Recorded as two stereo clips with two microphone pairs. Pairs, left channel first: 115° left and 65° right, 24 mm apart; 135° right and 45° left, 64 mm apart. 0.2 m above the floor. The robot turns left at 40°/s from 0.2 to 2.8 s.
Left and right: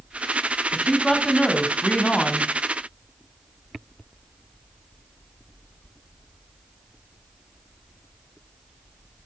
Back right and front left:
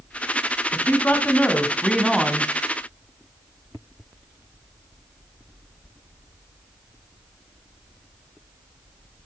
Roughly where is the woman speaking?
Behind.